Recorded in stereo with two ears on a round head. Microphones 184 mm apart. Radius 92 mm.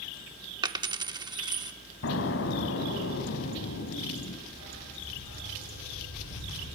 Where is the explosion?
70° left (ahead or behind), 2 m.